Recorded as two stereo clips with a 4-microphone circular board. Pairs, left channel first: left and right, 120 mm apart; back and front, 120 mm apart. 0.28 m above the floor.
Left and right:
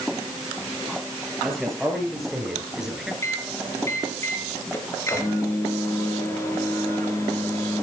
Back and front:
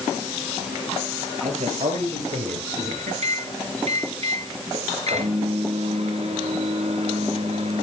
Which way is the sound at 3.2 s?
25° left.